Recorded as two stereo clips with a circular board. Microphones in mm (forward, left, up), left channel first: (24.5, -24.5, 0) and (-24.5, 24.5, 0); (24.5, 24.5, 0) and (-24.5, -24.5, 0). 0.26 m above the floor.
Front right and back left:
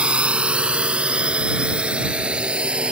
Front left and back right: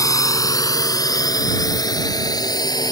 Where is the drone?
65° left; by 2.9 s 60° left.